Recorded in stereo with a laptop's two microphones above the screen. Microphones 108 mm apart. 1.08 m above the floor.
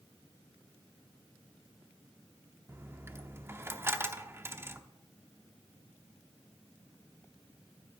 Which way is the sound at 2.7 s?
20° right (ahead or behind).